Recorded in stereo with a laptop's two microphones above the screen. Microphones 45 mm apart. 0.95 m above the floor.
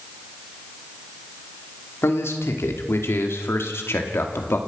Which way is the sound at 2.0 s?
75° left (ahead or behind).